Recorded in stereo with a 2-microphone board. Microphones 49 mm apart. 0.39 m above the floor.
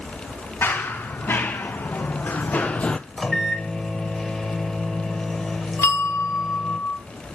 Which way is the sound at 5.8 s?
65° left (ahead or behind).